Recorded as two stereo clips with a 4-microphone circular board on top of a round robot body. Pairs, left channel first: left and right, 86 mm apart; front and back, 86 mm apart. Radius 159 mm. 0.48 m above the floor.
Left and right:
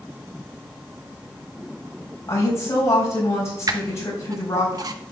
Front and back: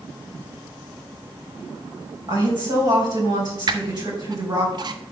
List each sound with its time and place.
2.3 s a woman speaking: 145° left, 4 m
3.7 s a squeak: 135° right, 0.5 m